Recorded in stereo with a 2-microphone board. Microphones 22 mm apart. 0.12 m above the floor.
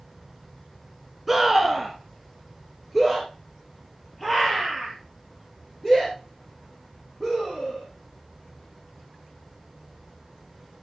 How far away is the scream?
About 1.2 m.